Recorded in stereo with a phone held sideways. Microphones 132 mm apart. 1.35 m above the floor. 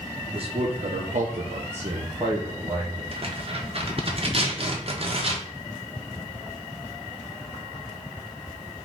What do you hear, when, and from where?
0.3 s a man speaking: 45° right (ahead or behind), 1.1 m; by 3.0 s 25° right (ahead or behind), 1.6 m
3.1 s tearing paper: 50° right (ahead or behind), 0.9 m